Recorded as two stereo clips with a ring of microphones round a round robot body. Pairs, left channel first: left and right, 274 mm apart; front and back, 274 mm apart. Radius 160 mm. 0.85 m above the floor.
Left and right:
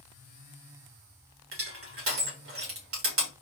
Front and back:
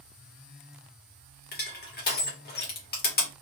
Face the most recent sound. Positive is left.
turn(degrees=-55)